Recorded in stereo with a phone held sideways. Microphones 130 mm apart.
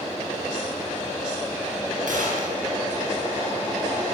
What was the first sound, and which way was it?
A gunshot, 80° right.